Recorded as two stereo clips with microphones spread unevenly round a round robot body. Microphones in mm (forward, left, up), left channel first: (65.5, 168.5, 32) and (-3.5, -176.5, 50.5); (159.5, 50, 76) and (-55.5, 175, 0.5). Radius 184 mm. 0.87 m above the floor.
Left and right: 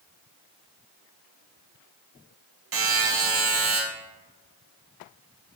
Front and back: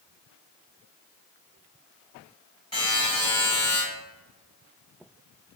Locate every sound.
2.7 s a buzzer: 75° right, 0.8 m